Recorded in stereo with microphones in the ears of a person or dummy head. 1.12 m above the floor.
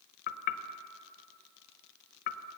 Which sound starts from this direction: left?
Knocking, at 0.3 s.